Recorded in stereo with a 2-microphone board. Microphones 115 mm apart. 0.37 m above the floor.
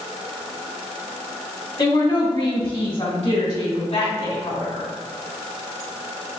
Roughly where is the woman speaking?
Left.